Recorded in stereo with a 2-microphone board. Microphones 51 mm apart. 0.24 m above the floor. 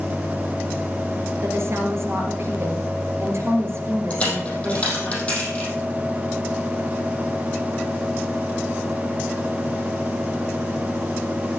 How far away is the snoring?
I don't hear snoring.